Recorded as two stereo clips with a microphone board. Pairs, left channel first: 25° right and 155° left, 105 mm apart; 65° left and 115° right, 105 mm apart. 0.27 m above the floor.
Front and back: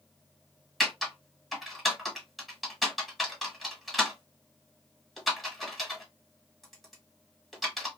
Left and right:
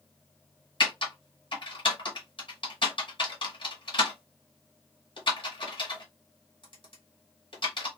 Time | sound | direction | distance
0.8 | typing on a keyboard | 65° left | 1.2 m